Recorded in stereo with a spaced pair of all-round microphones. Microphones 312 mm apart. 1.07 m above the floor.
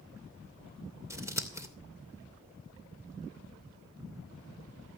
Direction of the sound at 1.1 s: 10° right (ahead or behind).